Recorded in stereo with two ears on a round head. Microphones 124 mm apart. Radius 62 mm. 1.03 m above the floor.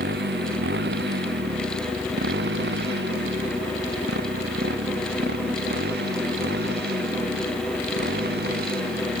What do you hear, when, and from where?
0.0 s a motorcycle: 80° right